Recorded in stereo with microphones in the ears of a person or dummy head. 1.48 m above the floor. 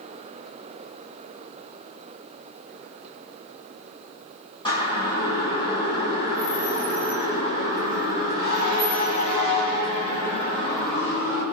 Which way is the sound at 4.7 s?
20° left (ahead or behind).